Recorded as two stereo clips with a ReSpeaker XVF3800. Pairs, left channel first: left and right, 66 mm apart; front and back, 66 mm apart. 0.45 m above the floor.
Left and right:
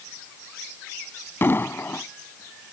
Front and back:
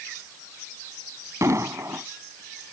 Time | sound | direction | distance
1.4 | an explosion | 140° left | ?